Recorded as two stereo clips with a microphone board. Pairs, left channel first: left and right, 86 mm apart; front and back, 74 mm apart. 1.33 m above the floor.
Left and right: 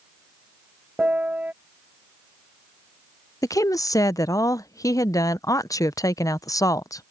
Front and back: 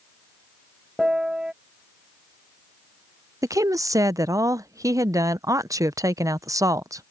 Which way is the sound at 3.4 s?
140° left.